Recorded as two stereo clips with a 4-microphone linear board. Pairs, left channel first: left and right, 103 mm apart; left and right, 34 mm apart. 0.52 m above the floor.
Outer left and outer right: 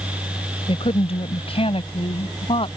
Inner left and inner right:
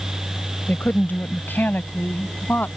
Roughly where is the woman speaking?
Left.